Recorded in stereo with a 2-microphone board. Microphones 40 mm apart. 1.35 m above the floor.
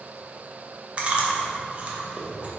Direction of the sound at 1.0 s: 35° right (ahead or behind).